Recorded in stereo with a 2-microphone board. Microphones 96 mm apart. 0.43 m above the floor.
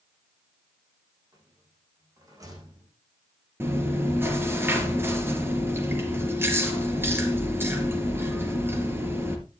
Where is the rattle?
35° right (ahead or behind), 8.5 m.